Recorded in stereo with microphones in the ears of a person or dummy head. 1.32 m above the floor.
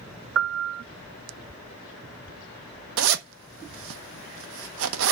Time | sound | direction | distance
0.3 | a piano | 65° right (ahead or behind) | 0.7 m
3.0 | a zipper | 80° right | 1.3 m